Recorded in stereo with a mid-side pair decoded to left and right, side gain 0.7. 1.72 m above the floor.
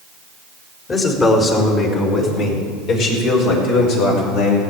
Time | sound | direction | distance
0.9 | a man speaking | 30° left | 4 m